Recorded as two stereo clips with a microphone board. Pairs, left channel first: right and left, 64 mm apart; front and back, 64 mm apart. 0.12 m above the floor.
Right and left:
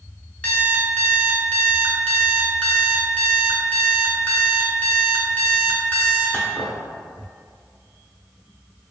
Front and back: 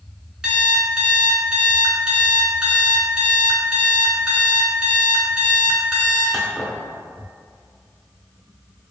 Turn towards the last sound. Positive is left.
turn(degrees=-115)